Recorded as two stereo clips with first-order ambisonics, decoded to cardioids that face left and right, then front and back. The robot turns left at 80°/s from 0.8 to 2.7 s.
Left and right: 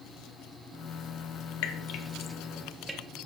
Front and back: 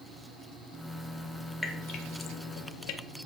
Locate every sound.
1.6 s dripping: 80° left, 1.1 m; by 3.0 s 5° right, 1.1 m